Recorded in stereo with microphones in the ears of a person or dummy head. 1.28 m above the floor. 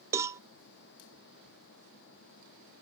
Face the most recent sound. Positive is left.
turn(degrees=-20)  # may be behind; listen again after turning